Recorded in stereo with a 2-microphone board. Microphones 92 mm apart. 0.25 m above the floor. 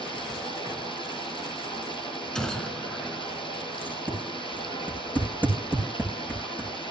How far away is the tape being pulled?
About 5 m.